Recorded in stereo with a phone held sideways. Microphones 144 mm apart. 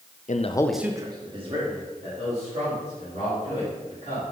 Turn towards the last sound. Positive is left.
turn(degrees=-50)  # may be behind; listen again after turning